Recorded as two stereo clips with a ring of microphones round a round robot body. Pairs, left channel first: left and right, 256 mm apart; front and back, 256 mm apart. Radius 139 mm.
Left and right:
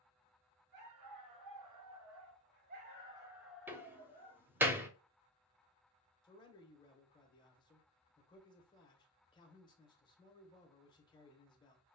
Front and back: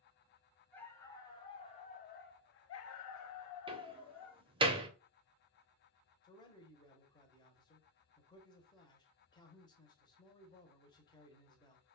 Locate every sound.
0.7 s a dog barking: 85° right, 1.4 m; by 4.4 s 20° left, 1.1 m
3.7 s a door slam: 160° right, 0.7 m
6.2 s a man speaking: 45° left, 1.0 m